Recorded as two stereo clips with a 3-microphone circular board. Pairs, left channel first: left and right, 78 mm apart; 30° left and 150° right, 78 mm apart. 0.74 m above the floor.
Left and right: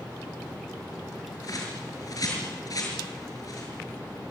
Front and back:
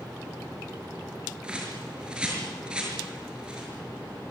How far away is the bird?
About 6.5 m.